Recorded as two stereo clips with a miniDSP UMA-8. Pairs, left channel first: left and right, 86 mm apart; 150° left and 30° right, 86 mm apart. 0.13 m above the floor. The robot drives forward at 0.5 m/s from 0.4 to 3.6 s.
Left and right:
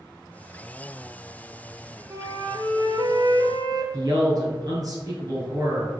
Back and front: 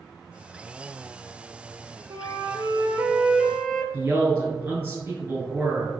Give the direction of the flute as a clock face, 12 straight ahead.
2 o'clock.